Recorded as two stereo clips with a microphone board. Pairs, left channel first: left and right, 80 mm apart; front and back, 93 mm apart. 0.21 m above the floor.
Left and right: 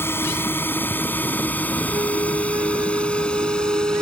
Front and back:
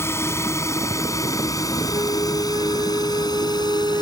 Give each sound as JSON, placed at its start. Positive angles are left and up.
{"t": 0.0, "sound": "a drone", "azimuth_deg": 45}
{"t": 1.9, "sound": "a flute", "azimuth_deg": -130}